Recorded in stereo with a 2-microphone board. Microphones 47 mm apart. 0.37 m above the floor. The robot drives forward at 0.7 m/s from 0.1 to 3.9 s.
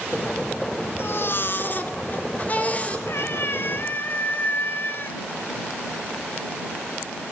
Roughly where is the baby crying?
Left.